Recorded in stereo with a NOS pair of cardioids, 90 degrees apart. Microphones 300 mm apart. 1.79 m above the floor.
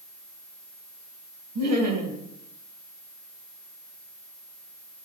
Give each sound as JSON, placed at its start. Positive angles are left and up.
{"t": 1.6, "sound": "laughter", "azimuth_deg": -65, "distance_m": 2.5}